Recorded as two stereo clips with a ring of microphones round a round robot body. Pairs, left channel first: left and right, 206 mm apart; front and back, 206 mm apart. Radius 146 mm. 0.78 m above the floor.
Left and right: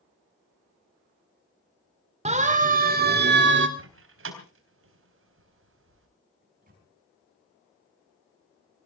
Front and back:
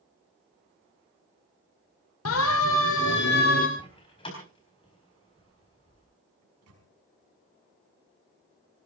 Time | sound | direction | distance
2.2 | a siren | 35° right | 2.5 m
3.8 | a door slam | 75° right | 3.5 m
6.4 | a microwave | 155° right | 5 m